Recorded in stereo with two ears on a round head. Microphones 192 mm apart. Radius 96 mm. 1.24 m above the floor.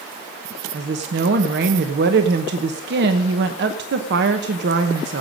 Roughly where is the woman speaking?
Right.